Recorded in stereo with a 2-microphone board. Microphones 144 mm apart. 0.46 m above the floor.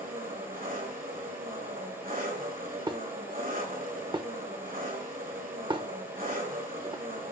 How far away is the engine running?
About 3 m.